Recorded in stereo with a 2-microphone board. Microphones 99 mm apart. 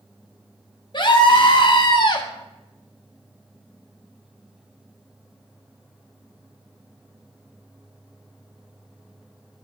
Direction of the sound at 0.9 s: 45° left (ahead or behind).